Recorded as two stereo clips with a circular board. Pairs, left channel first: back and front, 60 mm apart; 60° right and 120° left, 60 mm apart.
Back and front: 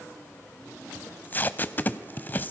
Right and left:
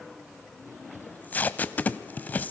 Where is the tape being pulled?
120° right, 0.7 m.